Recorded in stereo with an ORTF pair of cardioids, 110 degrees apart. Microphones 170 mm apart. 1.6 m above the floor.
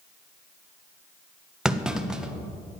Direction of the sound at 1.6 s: 5° right.